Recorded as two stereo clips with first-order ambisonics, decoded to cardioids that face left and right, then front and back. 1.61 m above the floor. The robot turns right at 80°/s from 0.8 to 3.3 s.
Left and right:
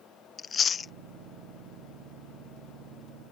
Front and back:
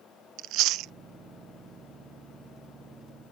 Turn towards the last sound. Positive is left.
turn(degrees=-5)